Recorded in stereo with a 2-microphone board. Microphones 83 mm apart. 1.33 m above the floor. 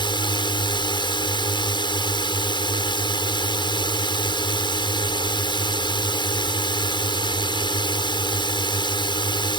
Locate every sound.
0.0 s a drone: 70° left (ahead or behind)